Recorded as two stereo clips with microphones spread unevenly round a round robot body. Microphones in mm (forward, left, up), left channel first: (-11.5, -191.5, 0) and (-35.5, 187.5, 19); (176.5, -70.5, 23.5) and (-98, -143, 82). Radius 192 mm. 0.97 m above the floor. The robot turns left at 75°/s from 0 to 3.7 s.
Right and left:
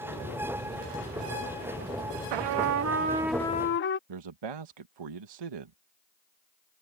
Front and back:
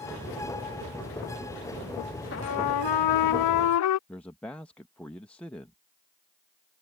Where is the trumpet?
80° left; by 4.0 s 25° right.